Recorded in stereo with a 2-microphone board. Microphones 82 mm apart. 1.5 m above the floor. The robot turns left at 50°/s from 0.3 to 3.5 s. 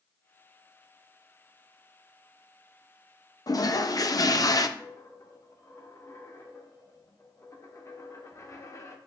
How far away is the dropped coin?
About 1.0 m.